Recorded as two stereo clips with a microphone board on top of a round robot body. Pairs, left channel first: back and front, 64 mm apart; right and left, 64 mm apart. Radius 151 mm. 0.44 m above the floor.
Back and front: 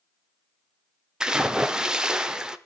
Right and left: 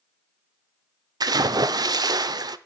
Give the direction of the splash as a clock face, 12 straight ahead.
9 o'clock.